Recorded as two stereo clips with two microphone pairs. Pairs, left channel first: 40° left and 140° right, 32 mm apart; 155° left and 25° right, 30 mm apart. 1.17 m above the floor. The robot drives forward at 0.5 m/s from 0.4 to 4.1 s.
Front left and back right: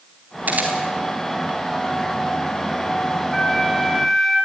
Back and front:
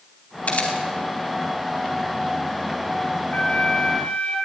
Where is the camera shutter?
170° right, 4 m.